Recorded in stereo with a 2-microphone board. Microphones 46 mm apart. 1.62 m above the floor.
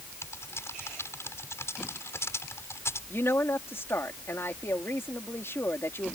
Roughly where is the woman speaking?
Left.